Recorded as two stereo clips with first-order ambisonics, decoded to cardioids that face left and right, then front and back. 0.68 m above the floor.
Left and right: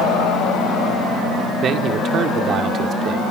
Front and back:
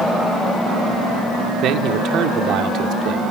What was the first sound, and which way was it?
A man speaking, 140° right.